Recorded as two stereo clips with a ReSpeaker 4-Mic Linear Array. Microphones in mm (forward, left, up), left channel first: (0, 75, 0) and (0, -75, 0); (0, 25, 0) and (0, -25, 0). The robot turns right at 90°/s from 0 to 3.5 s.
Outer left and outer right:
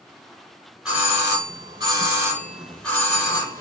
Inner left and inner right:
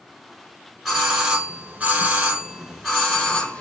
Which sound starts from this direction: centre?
A doorbell, at 0.8 s.